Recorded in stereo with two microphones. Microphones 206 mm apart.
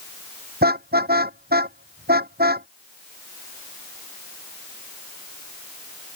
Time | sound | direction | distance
0.6 | a car horn | 55° right (ahead or behind) | ?